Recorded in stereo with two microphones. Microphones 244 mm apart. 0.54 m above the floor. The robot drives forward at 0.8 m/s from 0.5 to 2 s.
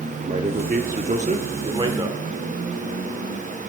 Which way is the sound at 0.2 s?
30° right (ahead or behind).